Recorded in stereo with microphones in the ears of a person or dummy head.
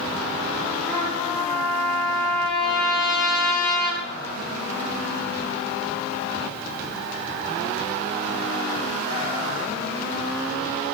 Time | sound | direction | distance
0.9 | a trumpet | 5° left (ahead or behind) | 2.5 m